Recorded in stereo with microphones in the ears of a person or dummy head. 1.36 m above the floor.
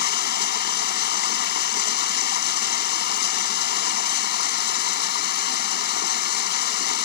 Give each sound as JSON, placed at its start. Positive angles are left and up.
{"t": 0.0, "sound": "running water", "side_deg": 60}